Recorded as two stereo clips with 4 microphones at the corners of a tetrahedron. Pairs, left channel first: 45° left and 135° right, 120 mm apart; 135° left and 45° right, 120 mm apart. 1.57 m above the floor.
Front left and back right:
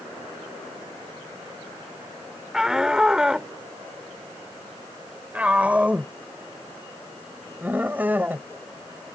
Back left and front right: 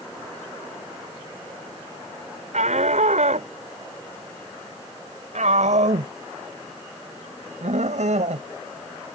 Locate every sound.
2.5 s a shout: 50° right; by 8.5 s 60° right